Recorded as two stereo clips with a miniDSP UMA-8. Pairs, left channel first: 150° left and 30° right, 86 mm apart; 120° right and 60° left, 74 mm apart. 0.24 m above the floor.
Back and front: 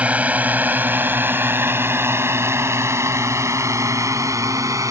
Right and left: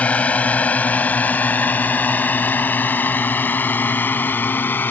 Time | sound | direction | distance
0.0 | a drone | 80° right | ?